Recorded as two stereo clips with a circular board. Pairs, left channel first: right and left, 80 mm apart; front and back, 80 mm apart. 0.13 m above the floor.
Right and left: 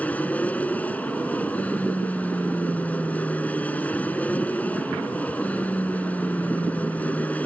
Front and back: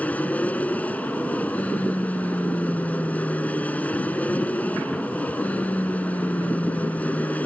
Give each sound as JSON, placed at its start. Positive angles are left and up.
{"t": 0.0, "sound": "an aircraft", "azimuth_deg": -45}